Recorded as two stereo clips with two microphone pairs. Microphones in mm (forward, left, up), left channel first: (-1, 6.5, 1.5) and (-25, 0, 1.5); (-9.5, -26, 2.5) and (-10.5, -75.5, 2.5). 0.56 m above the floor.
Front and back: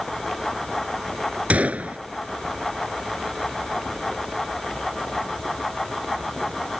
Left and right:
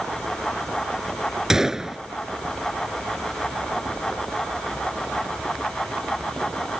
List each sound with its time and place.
1.5 s a gunshot: 170° right